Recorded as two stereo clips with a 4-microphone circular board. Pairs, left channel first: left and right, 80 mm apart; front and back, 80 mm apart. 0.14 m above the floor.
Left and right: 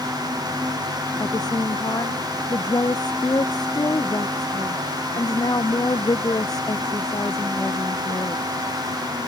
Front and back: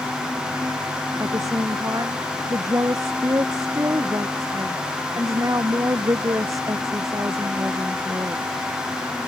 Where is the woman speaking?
130° left.